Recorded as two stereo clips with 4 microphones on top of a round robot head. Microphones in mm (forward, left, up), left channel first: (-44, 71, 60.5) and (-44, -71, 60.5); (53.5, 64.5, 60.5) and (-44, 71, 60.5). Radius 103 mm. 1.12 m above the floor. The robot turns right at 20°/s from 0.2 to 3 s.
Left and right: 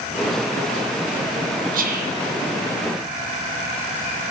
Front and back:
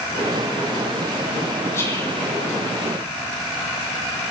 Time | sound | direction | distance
1.7 | whispering | 75° right | 0.8 m